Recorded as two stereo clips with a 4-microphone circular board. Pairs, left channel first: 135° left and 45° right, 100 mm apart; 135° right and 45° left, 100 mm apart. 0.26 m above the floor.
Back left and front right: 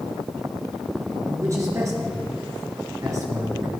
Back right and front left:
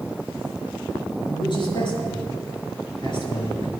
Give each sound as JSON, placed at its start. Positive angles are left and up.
{"t": 1.3, "sound": "a man speaking", "azimuth_deg": -100, "distance_m": 4.5}